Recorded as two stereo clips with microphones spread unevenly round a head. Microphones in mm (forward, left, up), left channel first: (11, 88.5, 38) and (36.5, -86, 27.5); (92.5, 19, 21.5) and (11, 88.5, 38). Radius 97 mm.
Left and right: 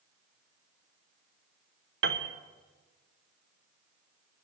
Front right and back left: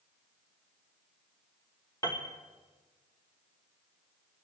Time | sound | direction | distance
2.0 | a piano | 120° right | 0.9 m